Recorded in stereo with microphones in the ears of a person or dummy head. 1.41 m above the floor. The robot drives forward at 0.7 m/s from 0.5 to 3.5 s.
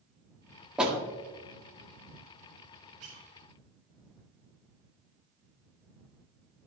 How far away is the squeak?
About 2 m.